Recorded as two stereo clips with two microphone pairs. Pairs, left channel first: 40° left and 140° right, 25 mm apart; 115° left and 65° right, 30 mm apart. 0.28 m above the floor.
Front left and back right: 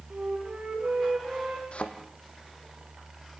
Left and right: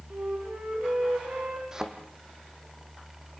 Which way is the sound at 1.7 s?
5° left.